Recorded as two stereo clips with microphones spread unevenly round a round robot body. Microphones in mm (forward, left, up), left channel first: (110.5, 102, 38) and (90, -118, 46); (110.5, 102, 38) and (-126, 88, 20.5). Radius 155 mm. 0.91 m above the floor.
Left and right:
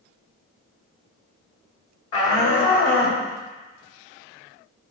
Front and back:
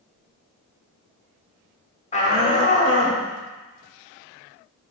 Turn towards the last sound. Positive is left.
turn(degrees=60)